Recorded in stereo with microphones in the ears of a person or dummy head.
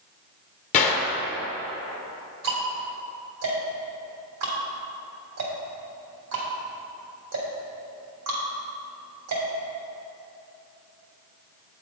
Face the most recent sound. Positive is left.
turn(degrees=-65)  # may be behind; listen again after turning